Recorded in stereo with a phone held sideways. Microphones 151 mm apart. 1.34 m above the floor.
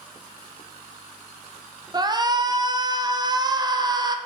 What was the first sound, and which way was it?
A shout, 30° right (ahead or behind).